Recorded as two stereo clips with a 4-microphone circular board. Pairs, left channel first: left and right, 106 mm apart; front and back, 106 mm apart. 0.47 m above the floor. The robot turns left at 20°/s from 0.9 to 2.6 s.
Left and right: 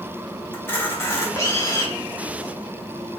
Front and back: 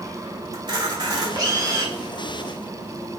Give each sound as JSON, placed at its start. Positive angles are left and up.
{"t": 0.5, "sound": "a camera shutter", "azimuth_deg": 150, "distance_m": 1.2}